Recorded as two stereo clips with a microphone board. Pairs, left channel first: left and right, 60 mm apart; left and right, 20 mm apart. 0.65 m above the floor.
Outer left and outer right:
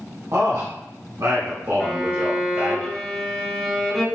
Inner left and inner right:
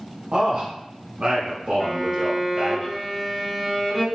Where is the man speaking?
55° right (ahead or behind), 1.6 m; by 2.8 s 40° right (ahead or behind), 2 m.